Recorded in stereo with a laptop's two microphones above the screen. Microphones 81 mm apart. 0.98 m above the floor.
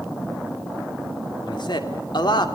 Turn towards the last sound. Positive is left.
turn(degrees=65)  # may be behind; listen again after turning